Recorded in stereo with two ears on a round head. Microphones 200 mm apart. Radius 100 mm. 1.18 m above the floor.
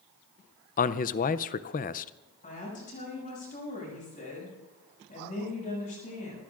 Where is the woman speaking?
35° left (ahead or behind), 7 m.